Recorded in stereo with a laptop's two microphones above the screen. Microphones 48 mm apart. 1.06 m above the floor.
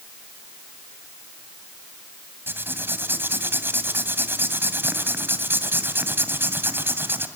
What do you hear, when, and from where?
2.5 s writing: 50° right (ahead or behind), 2 m